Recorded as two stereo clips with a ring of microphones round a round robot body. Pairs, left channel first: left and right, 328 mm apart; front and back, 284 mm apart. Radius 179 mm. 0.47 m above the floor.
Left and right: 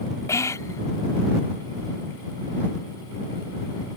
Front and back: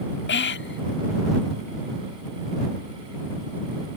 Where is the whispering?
15° left.